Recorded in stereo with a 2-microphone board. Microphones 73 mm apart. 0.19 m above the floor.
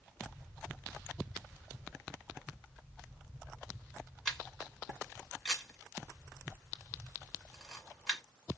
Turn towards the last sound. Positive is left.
turn(degrees=5)  # may be behind; listen again after turning